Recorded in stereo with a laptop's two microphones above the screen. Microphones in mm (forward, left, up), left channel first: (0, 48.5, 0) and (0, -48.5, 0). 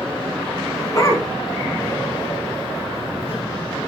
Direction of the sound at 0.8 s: 30° left (ahead or behind).